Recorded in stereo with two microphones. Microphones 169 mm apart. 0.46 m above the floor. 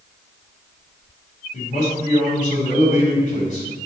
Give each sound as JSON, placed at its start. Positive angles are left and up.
{"t": 1.5, "sound": "a man speaking", "side_deg": 50, "distance_m": 3.5}